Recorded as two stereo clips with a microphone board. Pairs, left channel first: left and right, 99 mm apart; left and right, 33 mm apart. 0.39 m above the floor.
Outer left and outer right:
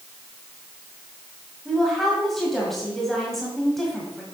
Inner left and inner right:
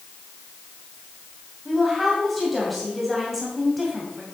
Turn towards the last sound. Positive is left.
turn(degrees=0)  # may be behind; listen again after turning